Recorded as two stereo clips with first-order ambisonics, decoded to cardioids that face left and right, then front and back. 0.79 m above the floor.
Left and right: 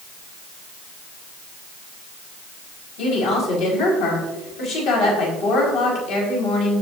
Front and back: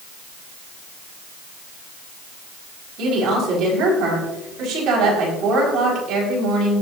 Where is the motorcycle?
I don't hear a motorcycle.